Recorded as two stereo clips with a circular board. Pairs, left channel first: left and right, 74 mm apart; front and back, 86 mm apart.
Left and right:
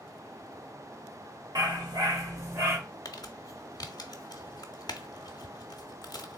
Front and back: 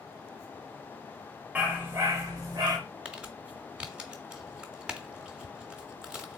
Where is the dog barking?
105° right, 1.5 m; by 2.8 s 145° right, 1.4 m.